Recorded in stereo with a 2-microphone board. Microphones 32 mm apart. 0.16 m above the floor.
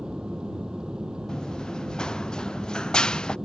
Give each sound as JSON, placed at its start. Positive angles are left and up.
{"t": 0.0, "sound": "an aircraft", "side_deg": -25}
{"t": 1.3, "sound": "running footsteps", "side_deg": 20}